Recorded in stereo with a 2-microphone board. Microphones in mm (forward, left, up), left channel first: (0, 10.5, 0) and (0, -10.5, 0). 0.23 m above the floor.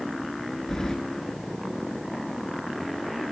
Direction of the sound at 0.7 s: 30° left (ahead or behind).